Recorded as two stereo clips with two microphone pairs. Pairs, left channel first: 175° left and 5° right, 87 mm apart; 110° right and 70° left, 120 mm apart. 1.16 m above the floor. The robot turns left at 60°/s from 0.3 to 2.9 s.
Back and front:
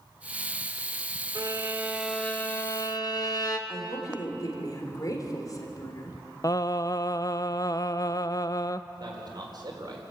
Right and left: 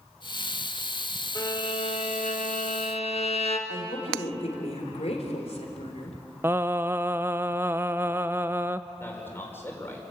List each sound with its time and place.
1.4 s a violin: 45° right, 1.6 m; by 3.6 s 140° right, 1.6 m
3.7 s a woman speaking: 135° right, 3.5 m
6.4 s singing: 135° left, 0.5 m
9.0 s a man speaking: 40° right, 4.5 m